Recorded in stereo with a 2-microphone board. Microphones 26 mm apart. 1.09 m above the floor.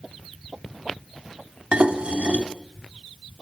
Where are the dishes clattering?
40° right (ahead or behind), 1.6 m.